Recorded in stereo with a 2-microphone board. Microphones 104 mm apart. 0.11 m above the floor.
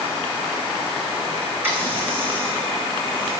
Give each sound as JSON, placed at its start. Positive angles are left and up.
{"t": 1.6, "sound": "a running tap", "side_deg": -20, "distance_m": 5.0}